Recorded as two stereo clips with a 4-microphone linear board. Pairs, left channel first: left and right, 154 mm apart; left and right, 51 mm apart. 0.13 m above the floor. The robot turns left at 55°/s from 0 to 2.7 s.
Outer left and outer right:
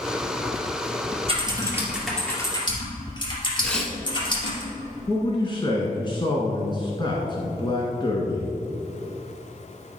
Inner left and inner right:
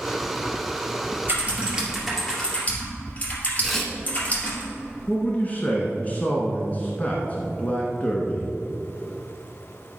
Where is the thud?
I don't hear a thud.